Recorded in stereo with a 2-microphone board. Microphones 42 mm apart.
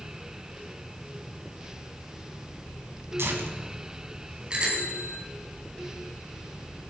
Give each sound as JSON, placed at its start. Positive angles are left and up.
{"t": 3.2, "sound": "tearing paper", "side_deg": -80, "distance_m": 3.0}
{"t": 4.5, "sound": "a bicycle bell", "side_deg": -20, "distance_m": 5.0}